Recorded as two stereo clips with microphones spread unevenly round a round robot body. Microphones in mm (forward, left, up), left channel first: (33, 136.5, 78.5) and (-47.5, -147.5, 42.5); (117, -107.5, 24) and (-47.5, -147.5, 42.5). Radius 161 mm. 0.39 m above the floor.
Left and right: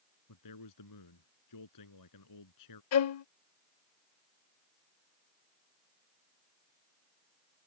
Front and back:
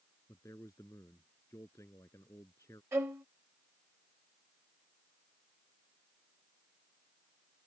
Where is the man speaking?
95° left.